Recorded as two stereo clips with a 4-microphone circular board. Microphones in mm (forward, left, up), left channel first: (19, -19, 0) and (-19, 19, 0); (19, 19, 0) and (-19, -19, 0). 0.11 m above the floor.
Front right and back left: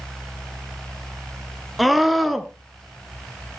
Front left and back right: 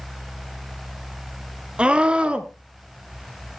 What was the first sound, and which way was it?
A scream, 135° right.